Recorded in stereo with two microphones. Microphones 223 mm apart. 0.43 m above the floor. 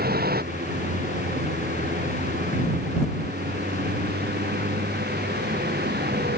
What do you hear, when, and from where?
0.0 s a vehicle: 45° right (ahead or behind)